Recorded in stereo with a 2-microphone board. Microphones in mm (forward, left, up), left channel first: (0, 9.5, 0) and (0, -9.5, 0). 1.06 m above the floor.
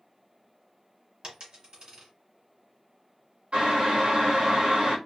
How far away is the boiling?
About 1.0 m.